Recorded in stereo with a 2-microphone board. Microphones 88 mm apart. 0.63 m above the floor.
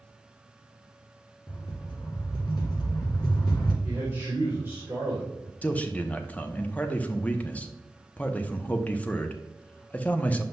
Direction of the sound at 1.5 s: 55° left (ahead or behind).